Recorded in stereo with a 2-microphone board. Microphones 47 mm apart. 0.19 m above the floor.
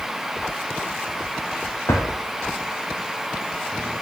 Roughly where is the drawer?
Left.